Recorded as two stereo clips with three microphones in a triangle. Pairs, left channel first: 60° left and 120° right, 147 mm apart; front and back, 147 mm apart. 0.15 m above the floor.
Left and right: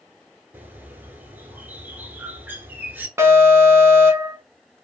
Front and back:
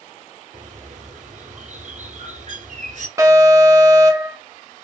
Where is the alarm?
160° right, 0.9 m.